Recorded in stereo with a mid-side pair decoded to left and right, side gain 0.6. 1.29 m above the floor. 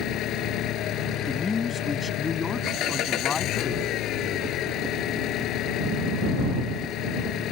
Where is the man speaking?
30° left.